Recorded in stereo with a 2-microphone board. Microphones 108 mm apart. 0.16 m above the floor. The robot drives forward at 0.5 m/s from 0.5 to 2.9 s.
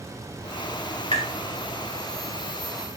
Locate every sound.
1.1 s tapping: 55° left (ahead or behind), 2.0 m